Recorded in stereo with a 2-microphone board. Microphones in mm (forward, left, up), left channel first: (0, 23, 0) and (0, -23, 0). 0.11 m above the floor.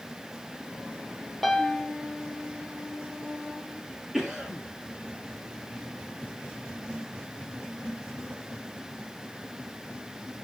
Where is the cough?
10° right (ahead or behind), 2.5 m.